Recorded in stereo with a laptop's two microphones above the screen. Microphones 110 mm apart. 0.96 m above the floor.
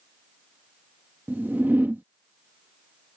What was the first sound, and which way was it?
A whoosh, 15° right (ahead or behind).